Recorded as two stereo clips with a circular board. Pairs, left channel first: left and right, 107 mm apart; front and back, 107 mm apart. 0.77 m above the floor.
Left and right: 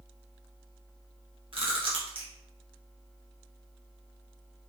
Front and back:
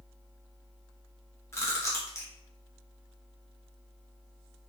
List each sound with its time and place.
1.5 s chewing: 65° right, 0.7 m